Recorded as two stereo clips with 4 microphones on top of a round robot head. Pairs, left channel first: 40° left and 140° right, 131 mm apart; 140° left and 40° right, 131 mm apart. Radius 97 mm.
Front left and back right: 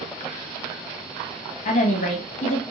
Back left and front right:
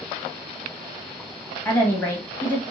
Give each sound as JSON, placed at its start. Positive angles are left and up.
{"t": 1.6, "sound": "a woman speaking", "azimuth_deg": 70, "distance_m": 1.1}